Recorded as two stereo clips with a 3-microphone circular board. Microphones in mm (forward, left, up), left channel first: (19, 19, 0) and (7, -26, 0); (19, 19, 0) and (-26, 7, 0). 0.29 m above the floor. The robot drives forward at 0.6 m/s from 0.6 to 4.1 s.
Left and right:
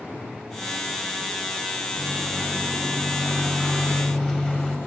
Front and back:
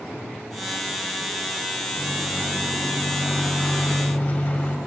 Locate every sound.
2.0 s a microwave: straight ahead, 2.5 m; by 4.8 s 5° left, 1.3 m